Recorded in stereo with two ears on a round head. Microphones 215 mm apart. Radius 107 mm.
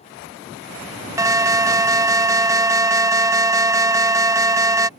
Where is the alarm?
15° right (ahead or behind).